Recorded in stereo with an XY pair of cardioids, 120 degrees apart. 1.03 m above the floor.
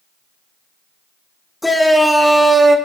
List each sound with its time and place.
1.6 s a shout: 10° left, 1.6 m; by 2.8 s 25° right, 1.6 m